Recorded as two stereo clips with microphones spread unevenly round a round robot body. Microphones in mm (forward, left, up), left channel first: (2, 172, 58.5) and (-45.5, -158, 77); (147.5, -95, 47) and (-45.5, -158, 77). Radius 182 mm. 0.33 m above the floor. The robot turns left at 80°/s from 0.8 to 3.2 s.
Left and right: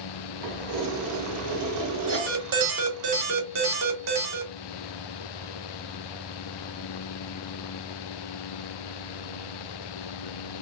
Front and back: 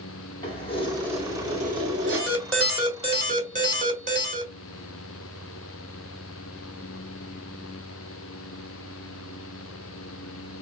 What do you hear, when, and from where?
0.4 s keys jangling: 40° right, 1.9 m; by 2.5 s 170° right, 1.9 m
2.1 s an alarm: 25° right, 2.5 m; by 4.5 s 115° right, 2.5 m